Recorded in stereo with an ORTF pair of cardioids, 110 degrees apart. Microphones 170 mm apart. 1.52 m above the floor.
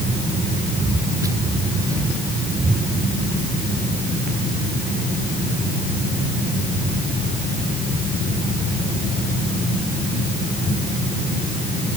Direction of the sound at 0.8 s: 20° right.